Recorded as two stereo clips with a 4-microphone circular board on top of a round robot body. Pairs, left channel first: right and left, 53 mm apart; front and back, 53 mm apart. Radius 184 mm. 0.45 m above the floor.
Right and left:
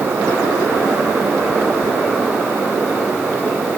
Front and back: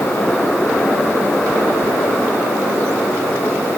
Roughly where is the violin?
No violin in this recording.